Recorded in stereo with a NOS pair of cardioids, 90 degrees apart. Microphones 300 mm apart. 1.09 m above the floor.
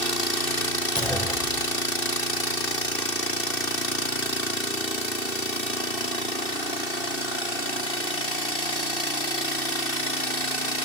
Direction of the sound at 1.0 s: 5° left.